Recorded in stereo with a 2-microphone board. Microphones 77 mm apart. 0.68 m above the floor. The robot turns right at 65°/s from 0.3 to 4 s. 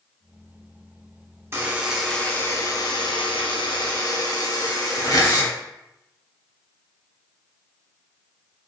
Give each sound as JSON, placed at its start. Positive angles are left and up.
{"t": 1.5, "sound": "a buzzer", "azimuth_deg": -30, "distance_m": 0.6}